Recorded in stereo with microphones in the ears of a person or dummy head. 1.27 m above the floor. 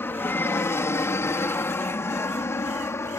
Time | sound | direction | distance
0.0 | an aircraft | 10° left (ahead or behind) | ?